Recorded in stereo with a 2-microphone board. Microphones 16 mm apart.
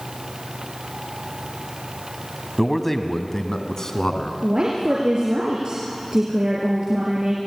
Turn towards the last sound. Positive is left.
turn(degrees=-55)  # may be behind; listen again after turning